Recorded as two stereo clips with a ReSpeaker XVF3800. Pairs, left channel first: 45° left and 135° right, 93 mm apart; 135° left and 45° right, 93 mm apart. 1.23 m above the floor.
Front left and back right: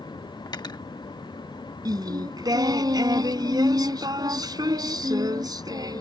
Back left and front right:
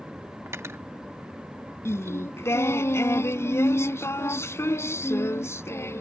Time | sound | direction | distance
0.5 | cutlery clinking | 10° left | ?
1.9 | singing | 170° right | ?